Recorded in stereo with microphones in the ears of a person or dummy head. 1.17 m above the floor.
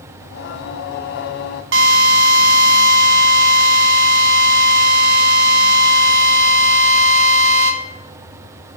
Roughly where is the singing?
Left.